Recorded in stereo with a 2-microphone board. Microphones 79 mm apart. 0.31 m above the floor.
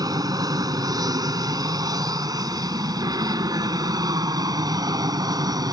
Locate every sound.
0.0 s an aircraft: 50° right (ahead or behind); by 5.7 s 55° right (ahead or behind)